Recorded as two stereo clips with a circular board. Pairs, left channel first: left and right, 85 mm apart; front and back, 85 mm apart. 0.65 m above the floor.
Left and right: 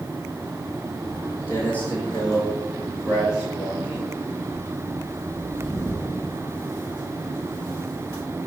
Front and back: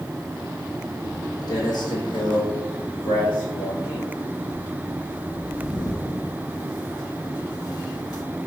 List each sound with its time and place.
1.0 s footsteps: 40° left, 1.3 m; by 8.2 s 40° right, 4.5 m